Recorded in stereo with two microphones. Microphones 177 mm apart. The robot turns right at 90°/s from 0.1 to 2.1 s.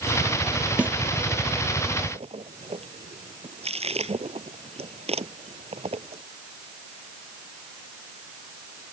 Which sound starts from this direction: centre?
A snare drum, at 0.8 s.